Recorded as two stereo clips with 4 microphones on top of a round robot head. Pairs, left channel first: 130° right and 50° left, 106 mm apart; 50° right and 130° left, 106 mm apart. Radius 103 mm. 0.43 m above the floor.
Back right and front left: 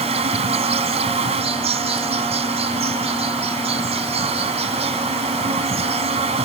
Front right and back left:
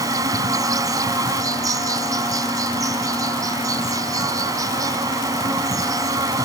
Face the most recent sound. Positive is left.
turn(degrees=75)